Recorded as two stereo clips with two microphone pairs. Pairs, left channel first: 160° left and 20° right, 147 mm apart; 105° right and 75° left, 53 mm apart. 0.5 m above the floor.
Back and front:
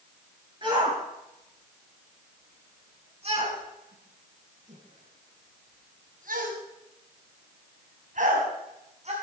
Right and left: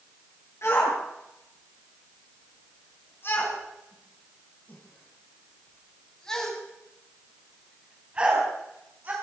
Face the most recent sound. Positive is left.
turn(degrees=25)